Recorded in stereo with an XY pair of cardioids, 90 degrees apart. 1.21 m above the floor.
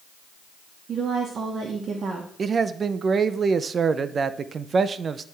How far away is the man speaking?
About 0.5 m.